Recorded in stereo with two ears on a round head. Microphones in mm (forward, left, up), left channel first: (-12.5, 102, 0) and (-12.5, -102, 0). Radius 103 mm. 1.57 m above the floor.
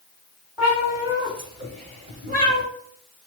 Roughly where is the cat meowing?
Centre.